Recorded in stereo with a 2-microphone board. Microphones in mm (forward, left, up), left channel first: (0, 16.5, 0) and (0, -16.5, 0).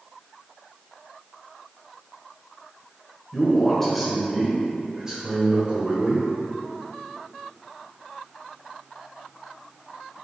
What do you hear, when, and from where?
3.3 s a man speaking: 20° left (ahead or behind), 1.0 m; by 6.2 s 35° right (ahead or behind), 1.5 m